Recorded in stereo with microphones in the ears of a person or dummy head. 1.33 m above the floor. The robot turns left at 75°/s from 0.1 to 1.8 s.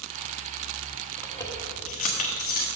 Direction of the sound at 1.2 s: Centre (ahead or behind).